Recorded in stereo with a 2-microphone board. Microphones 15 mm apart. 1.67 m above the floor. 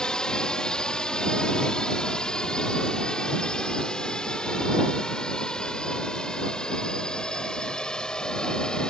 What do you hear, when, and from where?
0.0 s a drone: 70° left (ahead or behind); by 8.9 s 80° left